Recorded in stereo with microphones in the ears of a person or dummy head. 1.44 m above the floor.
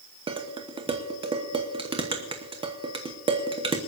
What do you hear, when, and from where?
0.3 s dishes clattering: 30° right (ahead or behind), 1.1 m